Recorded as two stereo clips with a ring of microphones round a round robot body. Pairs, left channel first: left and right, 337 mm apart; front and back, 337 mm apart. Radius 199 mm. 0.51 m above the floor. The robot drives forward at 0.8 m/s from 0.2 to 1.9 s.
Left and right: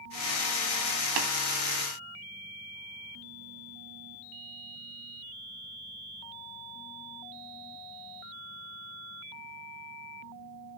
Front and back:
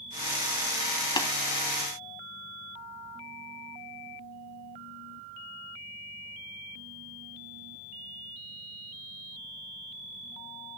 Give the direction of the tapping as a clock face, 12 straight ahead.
3 o'clock.